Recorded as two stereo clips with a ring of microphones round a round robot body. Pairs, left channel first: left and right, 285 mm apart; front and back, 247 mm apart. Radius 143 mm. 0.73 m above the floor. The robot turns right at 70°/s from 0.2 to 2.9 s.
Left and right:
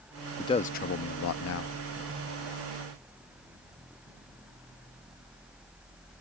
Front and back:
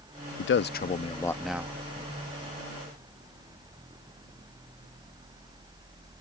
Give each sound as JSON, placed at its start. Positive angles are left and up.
{"t": 0.4, "sound": "a man speaking", "azimuth_deg": 15}